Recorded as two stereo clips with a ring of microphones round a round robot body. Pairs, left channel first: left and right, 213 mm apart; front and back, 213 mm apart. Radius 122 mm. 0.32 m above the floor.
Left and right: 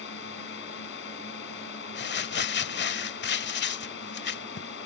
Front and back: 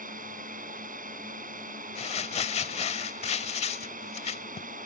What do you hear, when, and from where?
0.0 s a drone: 130° left
1.9 s crumpling: 60° left